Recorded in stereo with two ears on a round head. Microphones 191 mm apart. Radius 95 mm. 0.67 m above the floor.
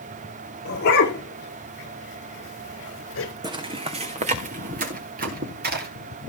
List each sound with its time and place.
0.7 s a dog barking: 50° left (ahead or behind), 6 m; by 3.3 s 65° left (ahead or behind), 4.5 m
3.4 s footsteps: 20° right (ahead or behind), 2 m; by 5.9 s 50° right (ahead or behind), 4 m